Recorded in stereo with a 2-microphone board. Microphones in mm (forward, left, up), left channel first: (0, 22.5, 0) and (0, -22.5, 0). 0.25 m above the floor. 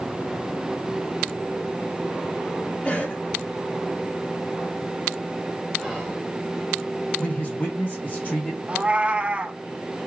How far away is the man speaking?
About 2.5 m.